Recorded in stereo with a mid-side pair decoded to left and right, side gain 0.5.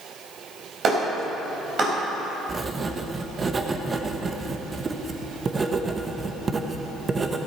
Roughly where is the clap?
Ahead right.